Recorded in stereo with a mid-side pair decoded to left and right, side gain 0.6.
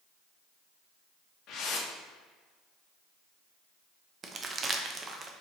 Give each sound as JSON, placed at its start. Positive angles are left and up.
{"t": 1.5, "sound": "a whoosh", "azimuth_deg": 60, "distance_m": 0.7}
{"t": 4.2, "sound": "crumpling", "azimuth_deg": -30, "distance_m": 0.5}